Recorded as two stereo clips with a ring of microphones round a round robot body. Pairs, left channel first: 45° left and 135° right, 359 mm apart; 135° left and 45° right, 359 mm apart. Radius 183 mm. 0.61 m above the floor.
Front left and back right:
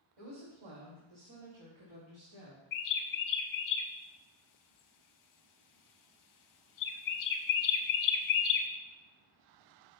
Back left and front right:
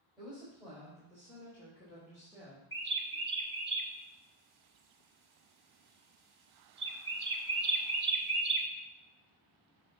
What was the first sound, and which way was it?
A woman speaking, 135° right.